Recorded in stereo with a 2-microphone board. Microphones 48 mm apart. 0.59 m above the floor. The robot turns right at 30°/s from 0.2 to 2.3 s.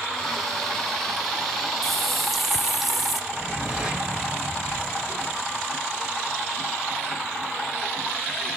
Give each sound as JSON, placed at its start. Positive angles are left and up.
{"t": 1.8, "sound": "a running tap", "side_deg": 10, "distance_m": 0.6}
{"t": 3.3, "sound": "a whoosh", "side_deg": -10, "distance_m": 2.5}